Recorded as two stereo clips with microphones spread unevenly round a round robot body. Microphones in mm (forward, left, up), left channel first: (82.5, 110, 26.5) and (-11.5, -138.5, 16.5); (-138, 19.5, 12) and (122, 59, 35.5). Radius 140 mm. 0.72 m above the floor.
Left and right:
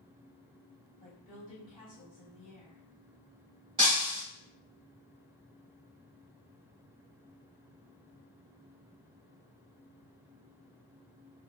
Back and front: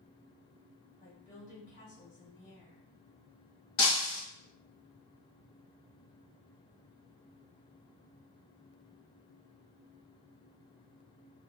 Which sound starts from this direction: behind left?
A woman speaking, at 1.0 s.